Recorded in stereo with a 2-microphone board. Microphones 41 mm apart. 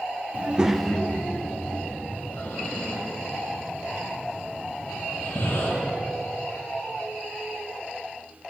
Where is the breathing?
80° left, 4 m.